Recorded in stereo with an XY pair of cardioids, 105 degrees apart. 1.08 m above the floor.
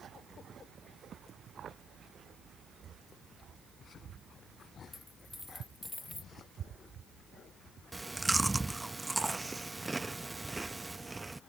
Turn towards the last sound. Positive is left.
turn(degrees=-15)